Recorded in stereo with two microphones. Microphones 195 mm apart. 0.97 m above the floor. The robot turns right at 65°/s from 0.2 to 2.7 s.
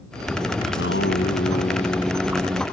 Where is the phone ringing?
I don't hear a phone ringing.